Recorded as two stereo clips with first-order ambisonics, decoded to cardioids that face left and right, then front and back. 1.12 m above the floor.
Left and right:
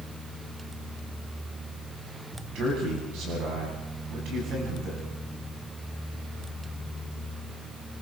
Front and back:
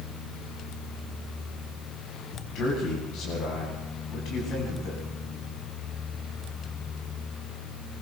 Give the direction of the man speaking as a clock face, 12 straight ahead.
2 o'clock.